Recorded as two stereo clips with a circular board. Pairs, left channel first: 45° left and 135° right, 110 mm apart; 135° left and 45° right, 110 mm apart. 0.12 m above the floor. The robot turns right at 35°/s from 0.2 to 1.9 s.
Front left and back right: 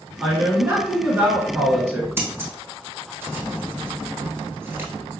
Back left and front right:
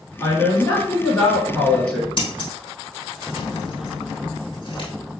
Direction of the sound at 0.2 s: 155° left.